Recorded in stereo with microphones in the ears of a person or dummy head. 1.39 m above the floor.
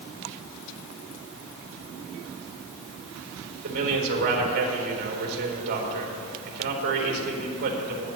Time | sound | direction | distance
3.6 | a man speaking | 55° right (ahead or behind) | 4 m